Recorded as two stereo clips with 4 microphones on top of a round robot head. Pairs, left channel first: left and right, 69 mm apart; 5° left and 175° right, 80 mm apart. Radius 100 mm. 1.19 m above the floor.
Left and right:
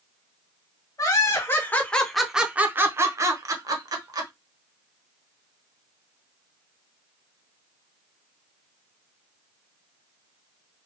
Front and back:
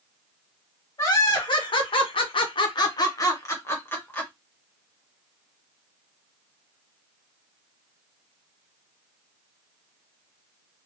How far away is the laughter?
About 1.1 m.